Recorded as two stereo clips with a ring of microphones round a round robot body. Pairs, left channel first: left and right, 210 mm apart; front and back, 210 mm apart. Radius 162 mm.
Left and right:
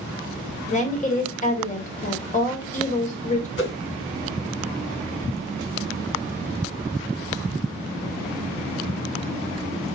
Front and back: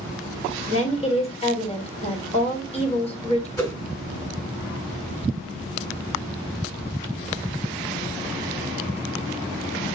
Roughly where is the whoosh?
Left.